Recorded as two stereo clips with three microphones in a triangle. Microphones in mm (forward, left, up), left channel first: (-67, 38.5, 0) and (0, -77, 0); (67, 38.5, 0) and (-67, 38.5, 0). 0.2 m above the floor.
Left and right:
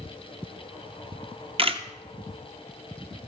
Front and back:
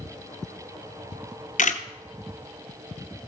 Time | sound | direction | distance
1.1 | a camera shutter | 15° right | 0.8 m